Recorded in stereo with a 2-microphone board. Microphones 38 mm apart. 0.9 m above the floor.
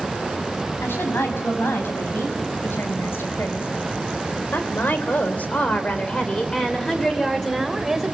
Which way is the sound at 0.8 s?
85° left.